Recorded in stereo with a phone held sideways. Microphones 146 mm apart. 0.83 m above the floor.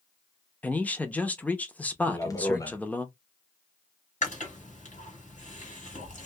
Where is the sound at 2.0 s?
25° left (ahead or behind), 0.6 m.